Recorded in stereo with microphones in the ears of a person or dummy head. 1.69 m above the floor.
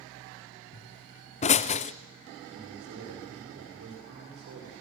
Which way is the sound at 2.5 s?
65° right (ahead or behind).